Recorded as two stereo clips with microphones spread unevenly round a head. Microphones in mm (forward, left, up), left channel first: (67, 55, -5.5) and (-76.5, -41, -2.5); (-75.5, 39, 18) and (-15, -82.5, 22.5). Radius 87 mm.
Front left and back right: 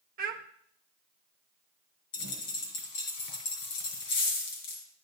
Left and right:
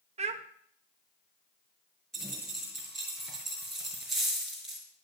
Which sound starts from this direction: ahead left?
A dropped coin, at 2.1 s.